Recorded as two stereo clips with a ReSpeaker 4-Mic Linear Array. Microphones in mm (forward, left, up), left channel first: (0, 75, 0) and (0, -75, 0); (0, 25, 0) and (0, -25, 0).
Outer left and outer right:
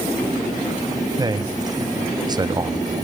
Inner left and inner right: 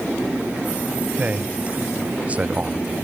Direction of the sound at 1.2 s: 25° right (ahead or behind).